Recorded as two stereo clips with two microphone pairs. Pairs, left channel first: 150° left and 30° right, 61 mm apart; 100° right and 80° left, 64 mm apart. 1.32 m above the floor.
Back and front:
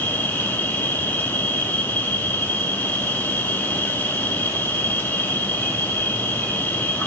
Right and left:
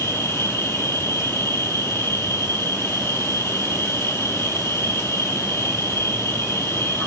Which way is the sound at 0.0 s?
150° right.